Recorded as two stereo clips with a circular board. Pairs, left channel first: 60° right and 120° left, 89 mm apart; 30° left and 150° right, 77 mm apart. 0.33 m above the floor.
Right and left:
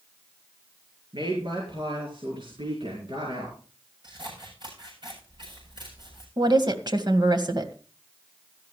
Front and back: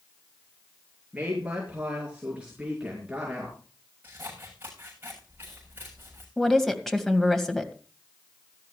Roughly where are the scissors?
Behind left.